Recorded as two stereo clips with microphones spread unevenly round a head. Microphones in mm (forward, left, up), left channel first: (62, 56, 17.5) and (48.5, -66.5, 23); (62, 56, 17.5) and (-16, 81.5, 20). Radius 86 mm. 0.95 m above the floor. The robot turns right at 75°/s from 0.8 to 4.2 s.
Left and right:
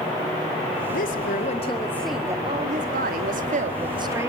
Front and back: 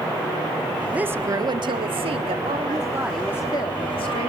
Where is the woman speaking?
85° left, 1.9 m; by 4.3 s 30° right, 1.9 m.